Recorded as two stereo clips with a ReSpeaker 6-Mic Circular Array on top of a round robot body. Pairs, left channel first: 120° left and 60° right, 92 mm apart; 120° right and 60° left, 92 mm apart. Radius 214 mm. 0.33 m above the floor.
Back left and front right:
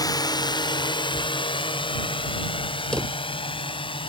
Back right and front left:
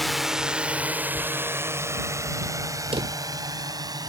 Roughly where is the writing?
Right.